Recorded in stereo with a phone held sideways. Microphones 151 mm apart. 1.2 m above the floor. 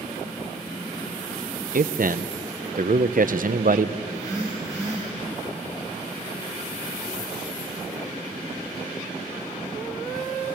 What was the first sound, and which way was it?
A man speaking, 65° right (ahead or behind).